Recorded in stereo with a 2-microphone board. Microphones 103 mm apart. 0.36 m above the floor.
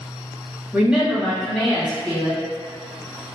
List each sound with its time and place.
0.7 s a woman speaking: 10° right (ahead or behind), 1.4 m; by 2.4 s 10° left (ahead or behind), 3 m